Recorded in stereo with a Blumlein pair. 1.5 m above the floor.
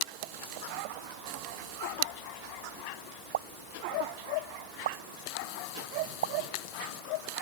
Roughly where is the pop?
Ahead right.